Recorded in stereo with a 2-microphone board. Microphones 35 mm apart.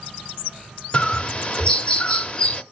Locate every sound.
0.9 s a bird: 30° left (ahead or behind), 0.7 m